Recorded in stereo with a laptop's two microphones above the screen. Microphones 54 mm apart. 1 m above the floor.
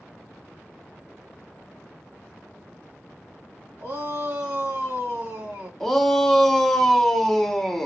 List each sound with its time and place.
3.8 s a shout: 70° right (ahead or behind), 1.2 m
5.8 s a shout: 5° left (ahead or behind), 0.6 m